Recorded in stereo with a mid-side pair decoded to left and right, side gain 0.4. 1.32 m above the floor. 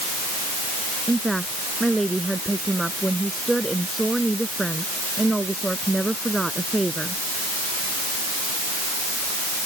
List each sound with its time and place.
1.1 s a woman speaking: 15° right